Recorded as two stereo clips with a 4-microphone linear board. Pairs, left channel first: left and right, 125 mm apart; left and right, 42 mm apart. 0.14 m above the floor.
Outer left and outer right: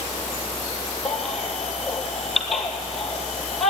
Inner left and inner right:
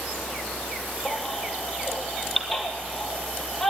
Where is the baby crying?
Centre (ahead or behind), 1.5 m.